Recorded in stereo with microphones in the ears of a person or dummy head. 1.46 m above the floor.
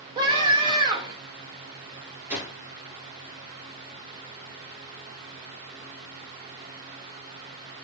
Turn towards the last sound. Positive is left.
turn(degrees=-15)  # may be behind; listen again after turning